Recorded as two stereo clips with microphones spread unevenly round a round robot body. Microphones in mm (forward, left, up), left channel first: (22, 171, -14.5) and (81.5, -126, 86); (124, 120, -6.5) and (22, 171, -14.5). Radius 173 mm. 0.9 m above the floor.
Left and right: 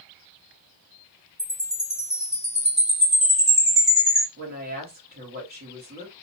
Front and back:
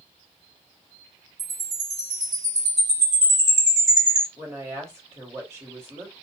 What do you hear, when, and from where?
1.4 s a chime: 170° right, 1.4 m
4.4 s a woman speaking: 145° right, 1.3 m